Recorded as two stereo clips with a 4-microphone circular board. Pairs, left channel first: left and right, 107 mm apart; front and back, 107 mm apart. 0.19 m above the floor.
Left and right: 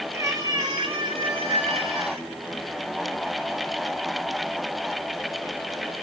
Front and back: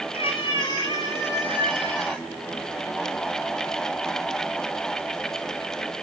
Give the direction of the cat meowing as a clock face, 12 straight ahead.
1 o'clock.